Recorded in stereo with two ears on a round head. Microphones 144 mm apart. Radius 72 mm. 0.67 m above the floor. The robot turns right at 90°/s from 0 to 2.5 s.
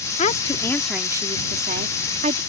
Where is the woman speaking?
120° left; by 2.4 s 45° right.